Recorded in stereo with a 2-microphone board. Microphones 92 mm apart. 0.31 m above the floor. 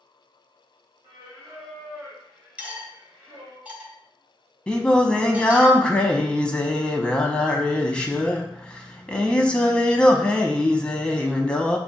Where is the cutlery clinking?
15° right (ahead or behind), 0.8 m.